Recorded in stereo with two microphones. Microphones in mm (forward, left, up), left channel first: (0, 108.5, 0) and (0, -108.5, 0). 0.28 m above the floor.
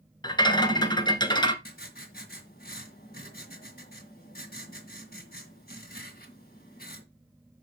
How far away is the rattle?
About 1.1 m.